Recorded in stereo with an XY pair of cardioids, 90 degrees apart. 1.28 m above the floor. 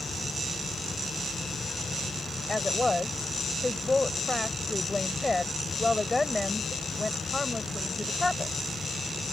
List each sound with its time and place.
0.0 s a fan: 30° left
2.5 s a woman speaking: 20° left